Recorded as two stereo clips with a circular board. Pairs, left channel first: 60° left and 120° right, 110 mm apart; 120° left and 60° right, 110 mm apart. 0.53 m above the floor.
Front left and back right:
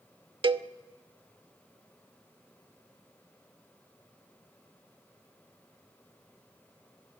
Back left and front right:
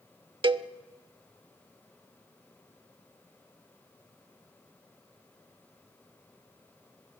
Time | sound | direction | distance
0.4 | a cowbell | 90° right | 0.5 m